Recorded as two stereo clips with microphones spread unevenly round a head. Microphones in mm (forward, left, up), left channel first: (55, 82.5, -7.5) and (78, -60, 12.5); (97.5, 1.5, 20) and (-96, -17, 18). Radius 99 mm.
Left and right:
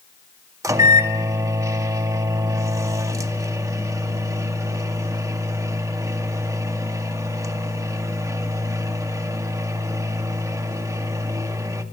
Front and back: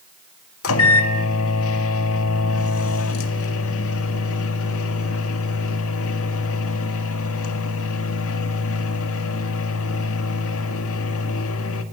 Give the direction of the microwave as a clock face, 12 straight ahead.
12 o'clock.